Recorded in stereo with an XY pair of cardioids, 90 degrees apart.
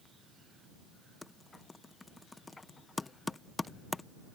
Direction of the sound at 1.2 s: 30° left.